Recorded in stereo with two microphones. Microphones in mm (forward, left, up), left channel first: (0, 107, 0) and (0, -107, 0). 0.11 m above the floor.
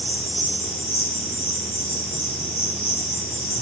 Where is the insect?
45° left (ahead or behind), 4 m.